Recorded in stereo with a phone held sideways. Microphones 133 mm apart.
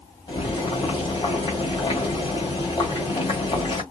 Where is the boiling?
35° left (ahead or behind), 1.7 m.